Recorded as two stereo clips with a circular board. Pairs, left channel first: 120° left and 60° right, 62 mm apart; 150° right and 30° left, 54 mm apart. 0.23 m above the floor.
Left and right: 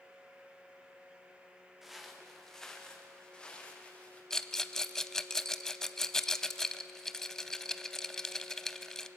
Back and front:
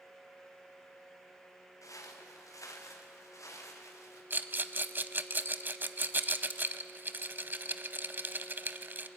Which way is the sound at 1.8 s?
145° right.